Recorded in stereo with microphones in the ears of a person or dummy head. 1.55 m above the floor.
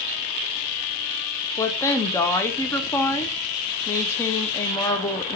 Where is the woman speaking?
20° left (ahead or behind), 0.7 m.